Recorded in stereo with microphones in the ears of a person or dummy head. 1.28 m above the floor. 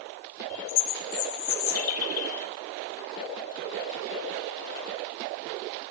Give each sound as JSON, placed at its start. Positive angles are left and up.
{"t": 0.5, "sound": "a bird", "side_deg": 85, "distance_m": 3.0}